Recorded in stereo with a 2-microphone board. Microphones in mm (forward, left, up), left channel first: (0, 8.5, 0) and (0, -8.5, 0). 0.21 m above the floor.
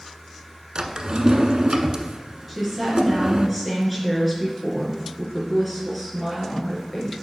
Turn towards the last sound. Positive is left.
turn(degrees=0)  # may be behind; listen again after turning